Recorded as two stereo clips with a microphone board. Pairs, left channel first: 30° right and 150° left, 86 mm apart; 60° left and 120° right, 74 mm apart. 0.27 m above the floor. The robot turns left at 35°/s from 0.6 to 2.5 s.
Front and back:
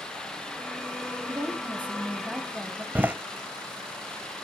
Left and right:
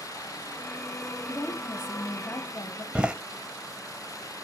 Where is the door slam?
175° right, 0.6 m.